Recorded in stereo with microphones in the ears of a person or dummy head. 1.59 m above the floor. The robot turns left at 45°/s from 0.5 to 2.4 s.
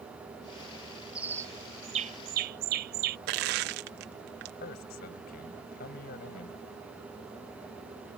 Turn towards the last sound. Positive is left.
turn(degrees=60)  # may be behind; listen again after turning